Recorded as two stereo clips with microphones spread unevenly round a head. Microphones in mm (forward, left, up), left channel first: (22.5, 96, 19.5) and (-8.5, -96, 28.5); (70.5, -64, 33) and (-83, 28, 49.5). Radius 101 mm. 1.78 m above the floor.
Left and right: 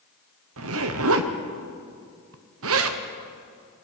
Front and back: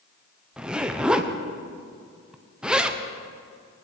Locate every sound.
0.6 s a zipper: 125° right, 1.3 m